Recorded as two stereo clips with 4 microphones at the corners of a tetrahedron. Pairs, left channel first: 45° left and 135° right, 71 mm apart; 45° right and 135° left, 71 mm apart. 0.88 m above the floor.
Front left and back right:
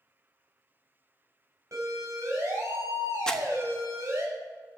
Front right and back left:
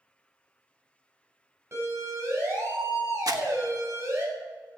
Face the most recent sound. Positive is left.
turn(degrees=125)